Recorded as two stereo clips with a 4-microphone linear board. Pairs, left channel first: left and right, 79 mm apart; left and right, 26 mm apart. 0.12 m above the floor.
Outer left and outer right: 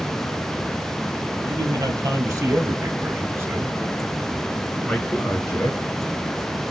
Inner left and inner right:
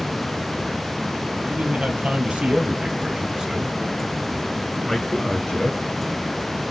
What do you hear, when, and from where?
1.4 s a man speaking: 45° right (ahead or behind), 2.5 m; by 5.8 s 30° left (ahead or behind), 1.5 m